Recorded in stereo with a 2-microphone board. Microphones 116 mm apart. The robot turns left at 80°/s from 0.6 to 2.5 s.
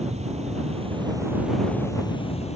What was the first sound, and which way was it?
An insect, 105° right.